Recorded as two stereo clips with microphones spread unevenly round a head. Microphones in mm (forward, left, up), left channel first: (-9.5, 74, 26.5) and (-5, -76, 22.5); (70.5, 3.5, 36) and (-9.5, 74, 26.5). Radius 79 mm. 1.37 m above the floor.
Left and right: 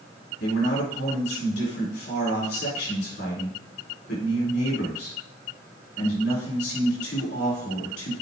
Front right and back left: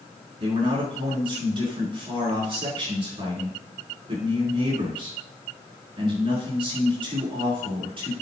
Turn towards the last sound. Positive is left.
turn(degrees=100)